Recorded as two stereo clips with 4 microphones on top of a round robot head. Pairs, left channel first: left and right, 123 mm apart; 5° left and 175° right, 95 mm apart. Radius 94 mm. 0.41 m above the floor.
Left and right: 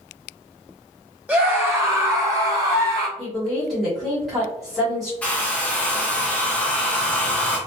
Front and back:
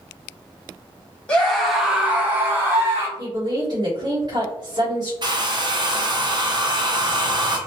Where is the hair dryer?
165° left, 0.8 m.